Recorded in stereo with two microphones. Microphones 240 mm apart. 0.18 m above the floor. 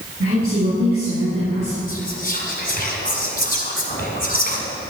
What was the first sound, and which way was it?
A woman speaking, 70° right (ahead or behind).